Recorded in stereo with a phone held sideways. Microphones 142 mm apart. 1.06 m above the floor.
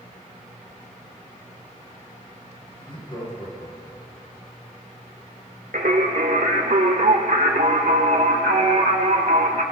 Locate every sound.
2.8 s laughter: 35° left (ahead or behind), 5.5 m; by 4.2 s 50° left (ahead or behind), 5 m
5.7 s singing: 65° right (ahead or behind), 1.2 m